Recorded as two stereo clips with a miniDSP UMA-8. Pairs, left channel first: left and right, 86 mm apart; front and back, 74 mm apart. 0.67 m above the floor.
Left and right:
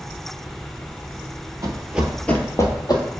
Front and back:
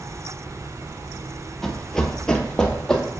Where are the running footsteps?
85° right, 0.8 m; by 3.0 s 80° left, 1.1 m.